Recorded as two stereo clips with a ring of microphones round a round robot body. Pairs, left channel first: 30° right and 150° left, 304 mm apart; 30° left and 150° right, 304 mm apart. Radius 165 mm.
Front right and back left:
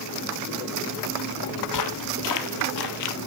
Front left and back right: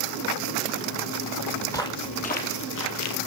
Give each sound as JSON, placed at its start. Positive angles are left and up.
{"t": 1.7, "sound": "footsteps", "azimuth_deg": -50, "distance_m": 1.2}